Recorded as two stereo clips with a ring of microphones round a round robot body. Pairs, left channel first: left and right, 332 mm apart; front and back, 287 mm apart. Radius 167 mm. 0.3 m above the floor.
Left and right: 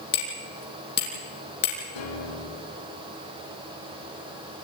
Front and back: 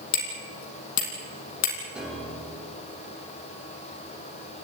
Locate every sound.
0.1 s hammering: 30° left, 5.5 m
1.9 s a piano: 95° left, 7.5 m